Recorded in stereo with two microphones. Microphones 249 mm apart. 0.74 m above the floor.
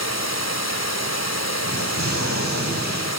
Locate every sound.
0.0 s running water: 75° left (ahead or behind), 1.9 m
1.6 s an explosion: 80° left, 5 m